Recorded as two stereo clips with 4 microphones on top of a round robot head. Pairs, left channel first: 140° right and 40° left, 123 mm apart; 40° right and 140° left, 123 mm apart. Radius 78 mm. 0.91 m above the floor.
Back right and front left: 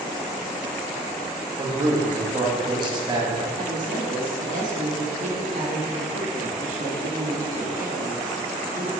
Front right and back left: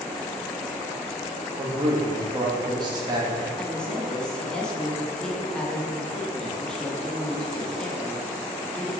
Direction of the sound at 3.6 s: 45° left.